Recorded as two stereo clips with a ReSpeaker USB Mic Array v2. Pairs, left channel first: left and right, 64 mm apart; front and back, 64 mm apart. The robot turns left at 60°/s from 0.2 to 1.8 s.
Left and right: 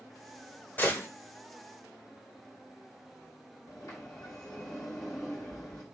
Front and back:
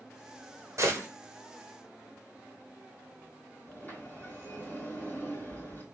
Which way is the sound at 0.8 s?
150° left.